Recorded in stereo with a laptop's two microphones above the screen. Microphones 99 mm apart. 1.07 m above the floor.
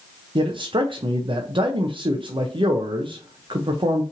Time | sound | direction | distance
0.3 | a man speaking | 55° right (ahead or behind) | 0.6 m